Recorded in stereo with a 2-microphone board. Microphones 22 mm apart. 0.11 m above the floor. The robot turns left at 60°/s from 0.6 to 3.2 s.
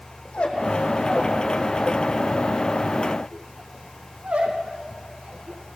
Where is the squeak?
55° left (ahead or behind), 3.5 m; by 5.8 s 75° right (ahead or behind), 3.5 m.